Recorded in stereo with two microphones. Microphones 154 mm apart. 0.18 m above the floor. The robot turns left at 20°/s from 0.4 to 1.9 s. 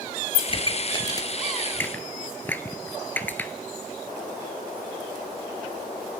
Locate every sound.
0.5 s a pop: 40° left (ahead or behind), 1.0 m; by 3.5 s 15° left (ahead or behind), 1.0 m